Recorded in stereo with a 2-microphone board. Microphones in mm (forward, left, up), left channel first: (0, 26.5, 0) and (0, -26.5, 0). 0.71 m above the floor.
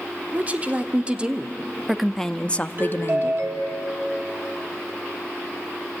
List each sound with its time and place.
0.3 s a woman speaking: 30° right (ahead or behind), 1.6 m; by 3.5 s 55° left (ahead or behind), 0.8 m
2.8 s a doorbell: 45° right (ahead or behind), 2 m